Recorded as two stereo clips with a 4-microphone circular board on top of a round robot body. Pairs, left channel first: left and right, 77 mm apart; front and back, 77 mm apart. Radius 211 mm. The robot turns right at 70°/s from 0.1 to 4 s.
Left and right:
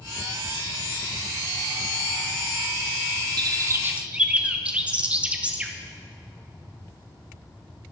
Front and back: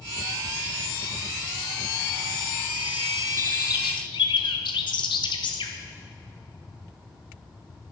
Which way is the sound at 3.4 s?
60° right.